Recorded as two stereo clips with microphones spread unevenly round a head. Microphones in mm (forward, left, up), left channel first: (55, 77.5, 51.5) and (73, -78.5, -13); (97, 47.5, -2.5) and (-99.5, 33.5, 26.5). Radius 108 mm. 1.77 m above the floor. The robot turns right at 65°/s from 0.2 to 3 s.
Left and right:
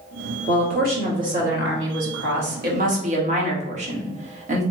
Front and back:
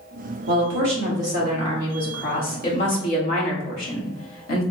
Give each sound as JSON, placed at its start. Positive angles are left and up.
{"t": 0.5, "sound": "a woman speaking", "azimuth_deg": 165, "distance_m": 1.5}